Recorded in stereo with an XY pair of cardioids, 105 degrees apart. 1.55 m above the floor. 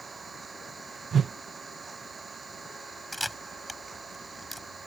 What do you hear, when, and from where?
0.0 s an engine running: 30° right
1.1 s a whoosh: 50° right
3.1 s a camera shutter: 5° left